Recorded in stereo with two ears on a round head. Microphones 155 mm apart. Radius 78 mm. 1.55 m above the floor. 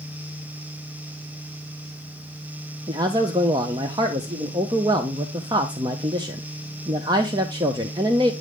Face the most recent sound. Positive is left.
turn(degrees=-20)  # may be behind; listen again after turning